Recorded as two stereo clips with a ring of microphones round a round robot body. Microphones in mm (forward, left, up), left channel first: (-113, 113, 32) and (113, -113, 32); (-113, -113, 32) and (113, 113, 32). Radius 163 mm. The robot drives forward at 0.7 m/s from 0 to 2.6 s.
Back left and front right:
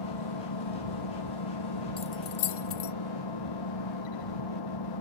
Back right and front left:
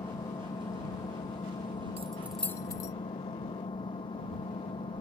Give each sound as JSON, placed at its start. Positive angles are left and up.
{"t": 0.0, "sound": "an engine running", "azimuth_deg": 145}
{"t": 2.0, "sound": "keys jangling", "azimuth_deg": 85}